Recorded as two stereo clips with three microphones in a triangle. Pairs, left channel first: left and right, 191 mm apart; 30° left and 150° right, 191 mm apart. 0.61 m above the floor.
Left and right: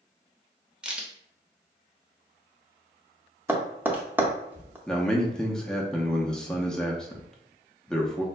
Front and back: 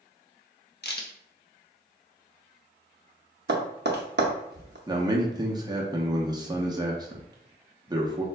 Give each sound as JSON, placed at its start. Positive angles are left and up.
{"t": 0.8, "sound": "a crack", "azimuth_deg": -5, "distance_m": 0.7}
{"t": 3.5, "sound": "tapping", "azimuth_deg": -170, "distance_m": 0.6}
{"t": 4.9, "sound": "a man speaking", "azimuth_deg": 175, "distance_m": 0.6}